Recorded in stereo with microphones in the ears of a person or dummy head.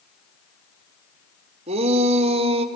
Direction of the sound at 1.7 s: 35° right (ahead or behind).